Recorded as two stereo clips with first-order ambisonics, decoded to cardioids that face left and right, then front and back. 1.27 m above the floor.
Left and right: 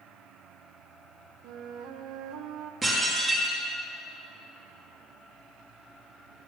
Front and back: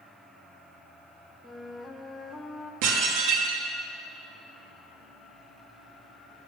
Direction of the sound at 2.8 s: 170° right.